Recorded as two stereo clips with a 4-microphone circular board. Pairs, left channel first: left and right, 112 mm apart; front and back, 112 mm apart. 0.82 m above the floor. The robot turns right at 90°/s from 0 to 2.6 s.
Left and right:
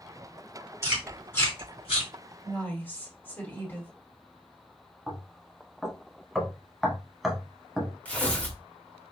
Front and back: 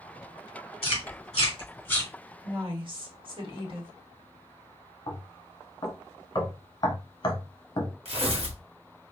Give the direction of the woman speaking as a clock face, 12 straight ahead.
7 o'clock.